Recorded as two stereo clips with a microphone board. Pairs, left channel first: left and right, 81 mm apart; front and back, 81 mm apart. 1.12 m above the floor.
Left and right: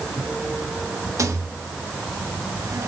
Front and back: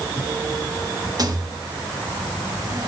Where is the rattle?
140° right, 0.9 m.